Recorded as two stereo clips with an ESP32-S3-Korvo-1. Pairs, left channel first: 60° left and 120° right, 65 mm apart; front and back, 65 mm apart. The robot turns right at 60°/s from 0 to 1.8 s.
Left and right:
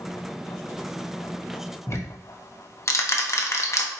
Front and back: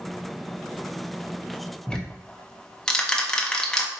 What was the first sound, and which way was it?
Ticking, 75° left.